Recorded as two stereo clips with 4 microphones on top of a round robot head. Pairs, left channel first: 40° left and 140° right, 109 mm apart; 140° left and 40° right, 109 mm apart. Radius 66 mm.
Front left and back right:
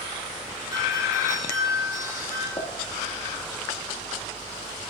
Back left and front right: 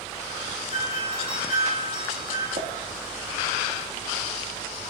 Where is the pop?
20° right, 1.8 m.